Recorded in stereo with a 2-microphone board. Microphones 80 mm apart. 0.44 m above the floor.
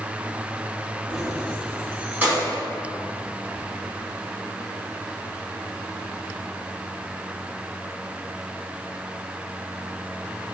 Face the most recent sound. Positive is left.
turn(degrees=-30)  # may be behind; listen again after turning